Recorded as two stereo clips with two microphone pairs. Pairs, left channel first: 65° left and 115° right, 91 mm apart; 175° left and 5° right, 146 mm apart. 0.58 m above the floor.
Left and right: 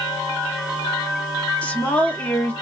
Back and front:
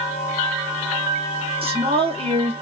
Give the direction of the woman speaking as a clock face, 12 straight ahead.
12 o'clock.